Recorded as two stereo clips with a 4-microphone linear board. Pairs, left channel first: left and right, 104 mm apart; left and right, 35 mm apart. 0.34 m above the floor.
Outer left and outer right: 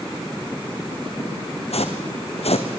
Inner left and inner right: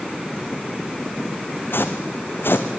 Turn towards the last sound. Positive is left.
turn(degrees=75)  # may be behind; listen again after turning